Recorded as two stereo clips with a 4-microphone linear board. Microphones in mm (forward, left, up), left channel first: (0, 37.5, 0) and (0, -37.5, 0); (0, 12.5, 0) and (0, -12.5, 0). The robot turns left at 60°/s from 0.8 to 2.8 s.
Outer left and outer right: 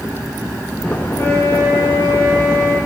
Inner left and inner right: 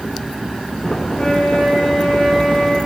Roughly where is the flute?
Behind left.